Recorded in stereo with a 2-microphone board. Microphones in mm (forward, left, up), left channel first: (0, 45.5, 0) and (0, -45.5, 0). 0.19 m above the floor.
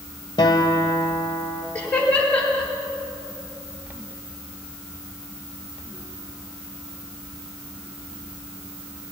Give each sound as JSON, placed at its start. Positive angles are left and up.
{"t": 0.4, "sound": "a guitar", "side_deg": 50, "distance_m": 1.4}
{"t": 1.8, "sound": "laughter", "side_deg": 15, "distance_m": 4.5}